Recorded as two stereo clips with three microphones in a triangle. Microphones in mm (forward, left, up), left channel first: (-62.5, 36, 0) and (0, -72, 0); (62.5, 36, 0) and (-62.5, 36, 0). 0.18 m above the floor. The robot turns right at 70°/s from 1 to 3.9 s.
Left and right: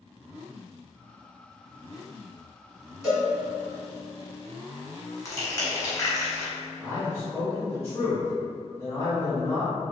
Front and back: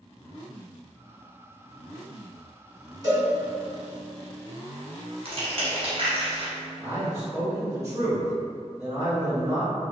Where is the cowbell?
150° right, 1.9 m; by 3.3 s 130° right, 1.9 m.